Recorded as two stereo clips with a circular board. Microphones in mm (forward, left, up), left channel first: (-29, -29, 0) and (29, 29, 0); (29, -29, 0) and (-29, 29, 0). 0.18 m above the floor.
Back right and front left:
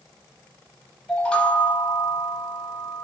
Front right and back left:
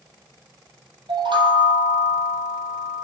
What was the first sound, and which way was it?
A chime, 145° left.